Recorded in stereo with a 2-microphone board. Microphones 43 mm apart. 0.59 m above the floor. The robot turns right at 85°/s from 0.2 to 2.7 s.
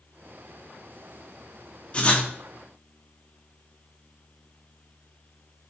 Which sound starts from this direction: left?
Writing, at 1.9 s.